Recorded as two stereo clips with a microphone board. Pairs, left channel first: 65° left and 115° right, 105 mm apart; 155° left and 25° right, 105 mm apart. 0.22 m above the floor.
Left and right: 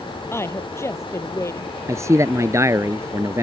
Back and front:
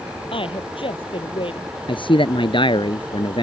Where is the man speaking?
170° right.